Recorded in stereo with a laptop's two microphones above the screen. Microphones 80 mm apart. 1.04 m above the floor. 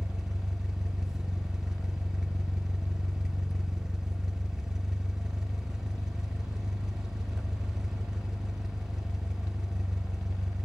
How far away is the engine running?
About 1.1 m.